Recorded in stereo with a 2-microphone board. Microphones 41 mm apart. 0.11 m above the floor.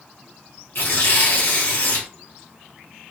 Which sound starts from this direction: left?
Tearing paper, at 0.8 s.